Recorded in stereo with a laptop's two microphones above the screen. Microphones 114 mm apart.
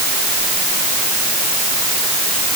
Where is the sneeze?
I don't hear a sneeze.